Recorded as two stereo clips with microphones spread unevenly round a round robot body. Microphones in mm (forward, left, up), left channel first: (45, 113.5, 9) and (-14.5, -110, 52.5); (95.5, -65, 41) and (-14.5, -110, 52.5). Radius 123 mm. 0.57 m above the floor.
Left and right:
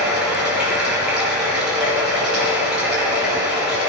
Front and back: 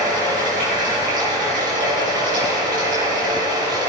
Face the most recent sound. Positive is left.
turn(degrees=170)